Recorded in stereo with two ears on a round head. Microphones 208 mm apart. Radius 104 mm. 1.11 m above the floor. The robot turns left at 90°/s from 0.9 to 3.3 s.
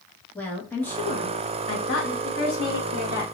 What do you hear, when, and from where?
0.3 s a woman speaking: 170° left, 1.4 m; by 2.1 s 60° left, 1.4 m
2.2 s a woman speaking: 60° left, 3 m; by 3.2 s 30° right, 3 m